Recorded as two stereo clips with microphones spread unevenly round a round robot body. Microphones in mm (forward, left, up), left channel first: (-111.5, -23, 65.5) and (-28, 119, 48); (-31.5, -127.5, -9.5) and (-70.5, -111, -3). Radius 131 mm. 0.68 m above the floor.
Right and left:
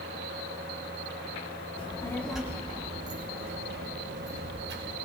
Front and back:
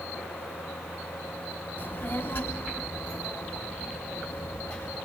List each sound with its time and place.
1.8 s a child speaking: 55° right, 1.1 m; by 5.0 s 55° left, 2.5 m